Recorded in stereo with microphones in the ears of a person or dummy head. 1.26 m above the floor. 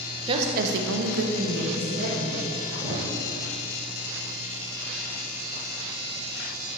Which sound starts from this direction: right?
A woman speaking, at 0.3 s.